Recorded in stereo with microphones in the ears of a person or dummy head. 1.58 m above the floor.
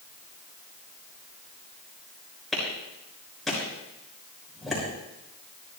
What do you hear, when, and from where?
2.5 s a clap: 5° left (ahead or behind), 6.5 m